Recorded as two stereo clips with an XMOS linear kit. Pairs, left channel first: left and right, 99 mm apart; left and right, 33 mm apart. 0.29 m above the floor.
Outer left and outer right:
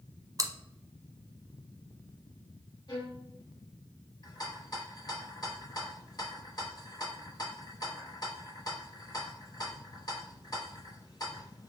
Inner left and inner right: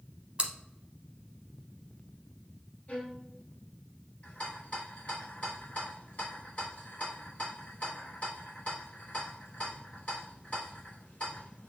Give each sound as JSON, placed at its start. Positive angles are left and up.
{"t": 0.4, "sound": "chewing", "side_deg": -35, "distance_m": 0.6}
{"t": 2.9, "sound": "a violin", "side_deg": 45, "distance_m": 1.0}
{"t": 4.2, "sound": "a rattle", "side_deg": 40, "distance_m": 1.3}